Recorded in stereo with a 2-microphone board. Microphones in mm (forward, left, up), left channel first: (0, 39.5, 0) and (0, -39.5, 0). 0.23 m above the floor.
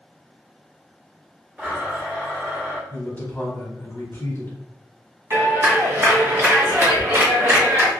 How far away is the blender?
About 1.3 m.